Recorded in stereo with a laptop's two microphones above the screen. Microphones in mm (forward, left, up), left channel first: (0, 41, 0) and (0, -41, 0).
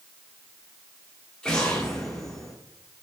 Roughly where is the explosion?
Centre.